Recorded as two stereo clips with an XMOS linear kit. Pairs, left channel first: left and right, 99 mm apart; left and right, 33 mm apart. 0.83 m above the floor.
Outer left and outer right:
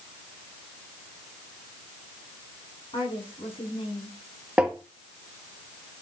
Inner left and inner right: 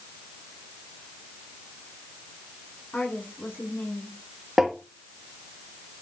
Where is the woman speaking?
70° left (ahead or behind), 8 m.